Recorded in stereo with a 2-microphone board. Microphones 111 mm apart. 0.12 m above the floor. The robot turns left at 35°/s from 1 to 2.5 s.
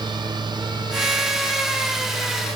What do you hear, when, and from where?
Only background noise.